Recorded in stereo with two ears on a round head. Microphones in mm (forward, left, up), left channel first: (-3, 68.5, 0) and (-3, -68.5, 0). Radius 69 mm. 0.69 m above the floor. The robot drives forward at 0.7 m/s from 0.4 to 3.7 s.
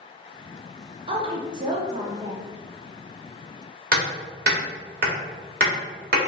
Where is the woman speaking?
40° right (ahead or behind), 0.8 m; by 2.5 s 20° right (ahead or behind), 1.5 m.